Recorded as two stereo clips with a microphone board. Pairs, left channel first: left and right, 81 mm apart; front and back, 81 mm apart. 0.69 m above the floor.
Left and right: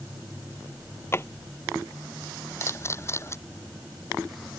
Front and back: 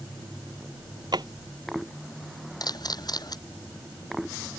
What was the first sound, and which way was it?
A drawer, 150° left.